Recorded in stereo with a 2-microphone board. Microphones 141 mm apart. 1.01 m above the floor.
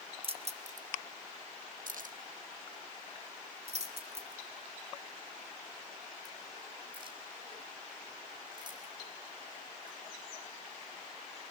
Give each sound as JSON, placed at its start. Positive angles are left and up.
{"t": 0.2, "sound": "keys jangling", "side_deg": -40, "distance_m": 0.8}